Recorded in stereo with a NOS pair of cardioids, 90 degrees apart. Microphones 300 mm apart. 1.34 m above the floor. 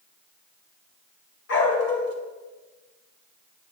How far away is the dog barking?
About 2.5 m.